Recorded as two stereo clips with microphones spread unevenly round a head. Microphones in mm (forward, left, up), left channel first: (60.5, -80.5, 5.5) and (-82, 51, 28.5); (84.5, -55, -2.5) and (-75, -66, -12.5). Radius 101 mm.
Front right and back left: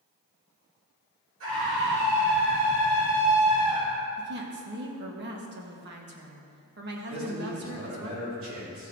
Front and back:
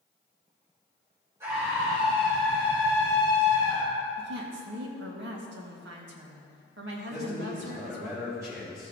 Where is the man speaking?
110° left, 4.5 m.